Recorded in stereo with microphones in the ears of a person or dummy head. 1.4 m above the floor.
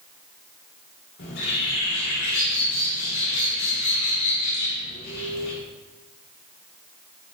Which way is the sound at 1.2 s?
65° left (ahead or behind).